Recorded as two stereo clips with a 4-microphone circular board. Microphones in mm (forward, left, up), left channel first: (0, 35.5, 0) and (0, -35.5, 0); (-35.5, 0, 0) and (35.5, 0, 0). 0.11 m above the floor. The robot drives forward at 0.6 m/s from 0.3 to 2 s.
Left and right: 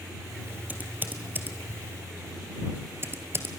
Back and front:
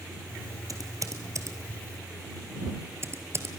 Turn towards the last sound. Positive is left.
turn(degrees=-40)